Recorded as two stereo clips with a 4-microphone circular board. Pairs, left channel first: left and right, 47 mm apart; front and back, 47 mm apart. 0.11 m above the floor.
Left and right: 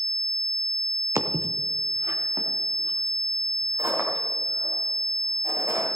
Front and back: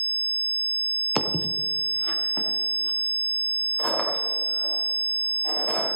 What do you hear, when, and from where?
1.1 s footsteps: 90° right, 1.3 m; by 5.9 s 75° right, 7 m